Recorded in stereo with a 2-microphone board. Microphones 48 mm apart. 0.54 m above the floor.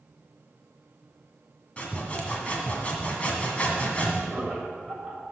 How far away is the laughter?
About 3 m.